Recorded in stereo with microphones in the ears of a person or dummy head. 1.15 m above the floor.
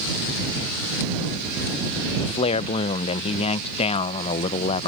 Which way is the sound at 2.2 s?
35° left (ahead or behind).